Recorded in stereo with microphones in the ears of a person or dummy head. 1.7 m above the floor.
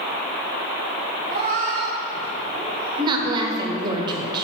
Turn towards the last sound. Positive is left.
turn(degrees=-30)  # may be behind; listen again after turning